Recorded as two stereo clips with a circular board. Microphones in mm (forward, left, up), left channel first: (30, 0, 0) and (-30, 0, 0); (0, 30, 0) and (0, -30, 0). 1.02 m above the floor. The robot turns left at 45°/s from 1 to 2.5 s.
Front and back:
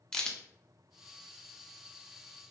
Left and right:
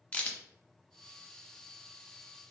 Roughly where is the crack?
Ahead left.